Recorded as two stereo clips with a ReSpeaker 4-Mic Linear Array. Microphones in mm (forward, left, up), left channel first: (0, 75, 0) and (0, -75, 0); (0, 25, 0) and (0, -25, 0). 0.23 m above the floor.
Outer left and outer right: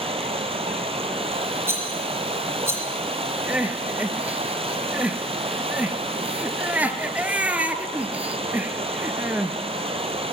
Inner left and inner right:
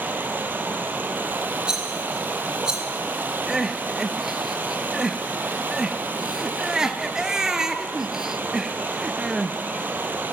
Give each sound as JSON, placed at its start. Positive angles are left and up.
{"t": 0.0, "sound": "running water", "side_deg": -40, "distance_m": 1.3}
{"t": 1.7, "sound": "a rattle", "side_deg": -15, "distance_m": 2.0}
{"t": 3.5, "sound": "crying", "side_deg": -10, "distance_m": 0.7}